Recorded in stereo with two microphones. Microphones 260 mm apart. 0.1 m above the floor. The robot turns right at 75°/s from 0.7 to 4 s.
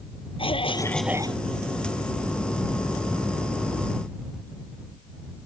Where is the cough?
155° left; by 1.4 s 150° right.